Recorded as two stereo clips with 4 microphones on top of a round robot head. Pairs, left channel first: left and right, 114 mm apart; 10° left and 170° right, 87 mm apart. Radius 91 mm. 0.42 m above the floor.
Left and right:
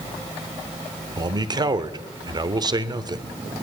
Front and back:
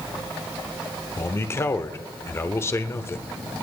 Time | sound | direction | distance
1.2 | a man speaking | 50° right | 1.1 m